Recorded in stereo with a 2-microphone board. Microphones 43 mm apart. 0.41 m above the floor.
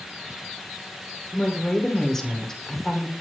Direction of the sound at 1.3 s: 10° left (ahead or behind).